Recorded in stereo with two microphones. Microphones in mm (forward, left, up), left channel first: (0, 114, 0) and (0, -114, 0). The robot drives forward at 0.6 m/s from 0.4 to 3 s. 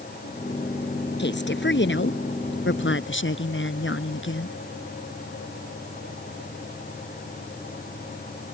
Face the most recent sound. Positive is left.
turn(degrees=60)  # may be behind; listen again after turning